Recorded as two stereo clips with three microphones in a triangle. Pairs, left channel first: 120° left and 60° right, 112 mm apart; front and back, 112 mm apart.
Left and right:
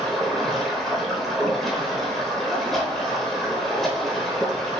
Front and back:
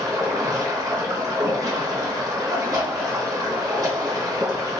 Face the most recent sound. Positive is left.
turn(degrees=-155)